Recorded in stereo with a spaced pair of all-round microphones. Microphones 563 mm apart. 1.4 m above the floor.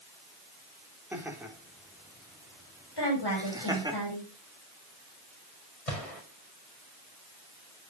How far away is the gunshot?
About 4.5 m.